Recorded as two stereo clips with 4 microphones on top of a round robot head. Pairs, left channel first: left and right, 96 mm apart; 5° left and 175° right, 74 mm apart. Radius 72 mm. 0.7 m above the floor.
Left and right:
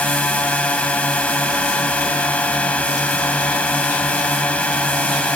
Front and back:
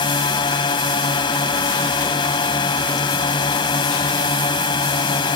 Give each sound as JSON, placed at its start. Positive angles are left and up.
{"t": 0.0, "sound": "a drone", "azimuth_deg": 15}